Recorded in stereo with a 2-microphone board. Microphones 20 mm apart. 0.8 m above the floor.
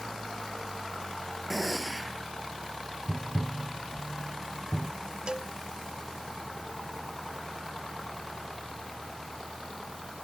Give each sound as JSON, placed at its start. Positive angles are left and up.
{"t": 1.5, "sound": "a gunshot", "side_deg": -5}
{"t": 3.1, "sound": "tapping", "side_deg": 40}
{"t": 5.3, "sound": "a cowbell", "side_deg": -40}